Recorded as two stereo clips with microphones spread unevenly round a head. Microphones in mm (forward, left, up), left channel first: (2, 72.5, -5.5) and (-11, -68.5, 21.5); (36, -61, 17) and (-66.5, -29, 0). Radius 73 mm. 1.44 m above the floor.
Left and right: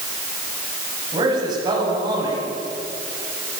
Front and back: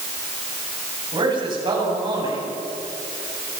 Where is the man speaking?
155° right, 8 m.